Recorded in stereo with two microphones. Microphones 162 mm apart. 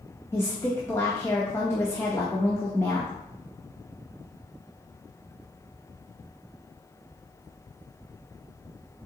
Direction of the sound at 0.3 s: 15° left (ahead or behind).